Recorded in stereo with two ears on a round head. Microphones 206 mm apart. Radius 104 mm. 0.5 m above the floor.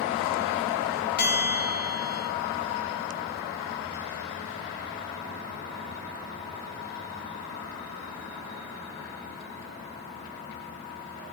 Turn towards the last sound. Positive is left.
turn(degrees=45)  # may be behind; listen again after turning